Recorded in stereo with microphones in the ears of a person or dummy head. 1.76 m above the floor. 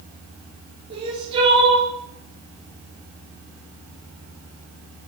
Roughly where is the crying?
Right.